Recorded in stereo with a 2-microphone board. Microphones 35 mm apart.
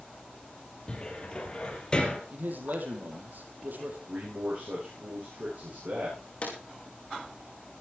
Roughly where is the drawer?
Left.